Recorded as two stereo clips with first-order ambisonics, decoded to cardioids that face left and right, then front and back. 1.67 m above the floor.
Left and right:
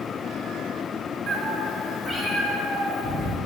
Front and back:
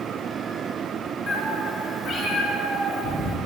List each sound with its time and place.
1.3 s a cat meowing: 55° right, 1.3 m; by 3.4 s 50° left, 1.6 m